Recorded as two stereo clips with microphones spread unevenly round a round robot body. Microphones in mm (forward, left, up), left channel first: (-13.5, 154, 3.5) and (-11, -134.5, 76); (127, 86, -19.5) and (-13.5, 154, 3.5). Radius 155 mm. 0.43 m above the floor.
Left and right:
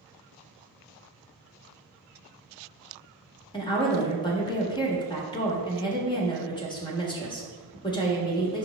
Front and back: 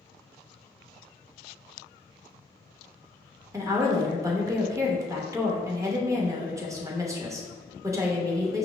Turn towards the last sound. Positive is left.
turn(degrees=85)